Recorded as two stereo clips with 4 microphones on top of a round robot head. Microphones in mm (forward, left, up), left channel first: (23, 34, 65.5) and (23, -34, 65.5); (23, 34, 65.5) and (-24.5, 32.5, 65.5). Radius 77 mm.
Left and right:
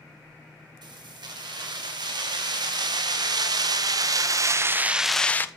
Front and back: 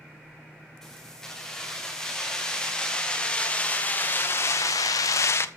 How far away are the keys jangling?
About 4.5 m.